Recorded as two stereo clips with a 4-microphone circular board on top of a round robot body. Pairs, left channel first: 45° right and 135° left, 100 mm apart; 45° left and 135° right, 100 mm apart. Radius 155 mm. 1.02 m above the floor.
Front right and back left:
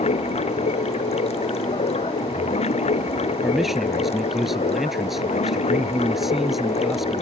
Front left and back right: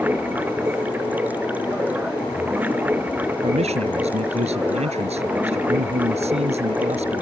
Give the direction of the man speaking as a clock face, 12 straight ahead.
5 o'clock.